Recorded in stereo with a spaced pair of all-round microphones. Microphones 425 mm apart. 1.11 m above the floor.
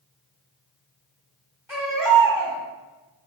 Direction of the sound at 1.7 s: 5° right (ahead or behind).